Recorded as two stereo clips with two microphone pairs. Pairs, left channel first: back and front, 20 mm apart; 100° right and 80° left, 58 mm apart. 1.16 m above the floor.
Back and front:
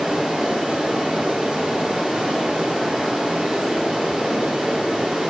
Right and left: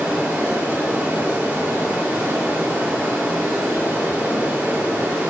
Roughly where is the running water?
Ahead.